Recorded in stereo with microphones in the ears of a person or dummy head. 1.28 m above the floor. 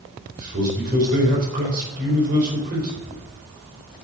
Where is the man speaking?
45° right (ahead or behind), 4 m.